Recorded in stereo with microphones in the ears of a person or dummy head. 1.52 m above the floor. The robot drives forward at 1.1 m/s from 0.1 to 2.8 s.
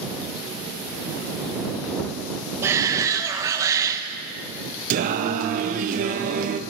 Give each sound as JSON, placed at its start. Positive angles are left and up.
{"t": 2.6, "sound": "a shout", "side_deg": -15, "distance_m": 1.2}
{"t": 4.9, "sound": "singing", "side_deg": -50, "distance_m": 0.8}